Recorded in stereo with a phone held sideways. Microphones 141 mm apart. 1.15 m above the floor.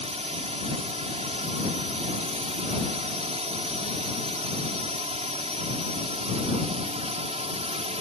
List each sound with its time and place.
0.0 s a drone: 50° right (ahead or behind)